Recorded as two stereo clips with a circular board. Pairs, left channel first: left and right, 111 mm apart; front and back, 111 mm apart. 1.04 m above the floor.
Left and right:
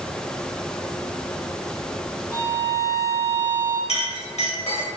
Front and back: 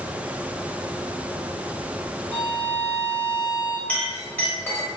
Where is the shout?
I don't hear a shout.